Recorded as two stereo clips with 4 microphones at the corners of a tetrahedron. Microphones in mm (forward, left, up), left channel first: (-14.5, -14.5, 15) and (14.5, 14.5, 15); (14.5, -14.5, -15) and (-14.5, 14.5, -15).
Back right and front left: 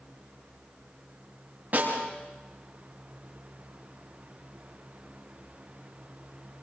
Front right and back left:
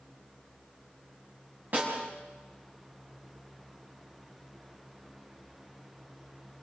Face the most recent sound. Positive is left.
turn(degrees=95)